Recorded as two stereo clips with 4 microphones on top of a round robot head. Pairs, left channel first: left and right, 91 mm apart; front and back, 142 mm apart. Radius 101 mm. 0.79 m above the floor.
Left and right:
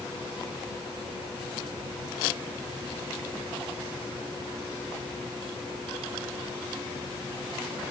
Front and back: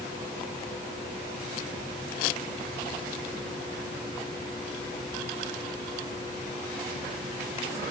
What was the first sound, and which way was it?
Only background noise.